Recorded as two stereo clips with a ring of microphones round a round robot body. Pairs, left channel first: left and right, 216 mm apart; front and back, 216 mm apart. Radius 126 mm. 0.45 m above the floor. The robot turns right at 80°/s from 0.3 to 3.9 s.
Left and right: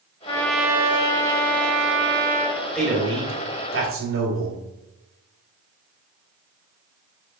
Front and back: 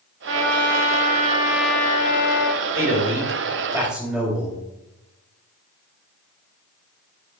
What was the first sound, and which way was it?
A trumpet, 160° left.